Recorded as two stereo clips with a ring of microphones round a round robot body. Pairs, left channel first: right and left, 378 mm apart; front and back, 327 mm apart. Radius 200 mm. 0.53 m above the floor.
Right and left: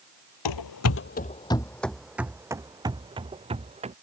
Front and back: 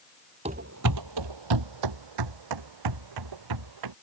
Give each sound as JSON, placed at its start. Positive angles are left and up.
{"t": 0.5, "sound": "running footsteps", "azimuth_deg": -105}